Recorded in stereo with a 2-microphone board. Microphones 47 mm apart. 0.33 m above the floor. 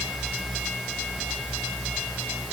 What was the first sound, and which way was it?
Only background noise.